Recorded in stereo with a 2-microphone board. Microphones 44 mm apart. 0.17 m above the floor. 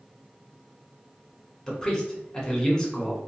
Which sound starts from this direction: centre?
A man speaking, at 1.7 s.